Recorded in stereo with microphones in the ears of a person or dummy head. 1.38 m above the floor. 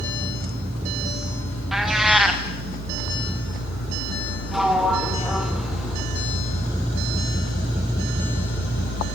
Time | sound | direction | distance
1.7 | a cat meowing | 5° right (ahead or behind) | 2 m
4.5 | a sliding door | 5° right (ahead or behind) | 2.5 m